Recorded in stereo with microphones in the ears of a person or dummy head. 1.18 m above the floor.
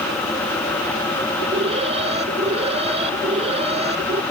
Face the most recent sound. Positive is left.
turn(degrees=-35)  # may be behind; listen again after turning